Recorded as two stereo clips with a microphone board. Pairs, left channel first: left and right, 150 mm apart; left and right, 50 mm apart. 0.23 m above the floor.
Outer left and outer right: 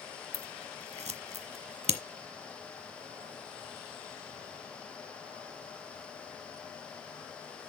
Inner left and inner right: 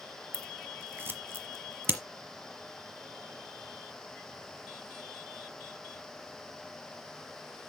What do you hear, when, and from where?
0.3 s scissors: 45° right (ahead or behind), 1.2 m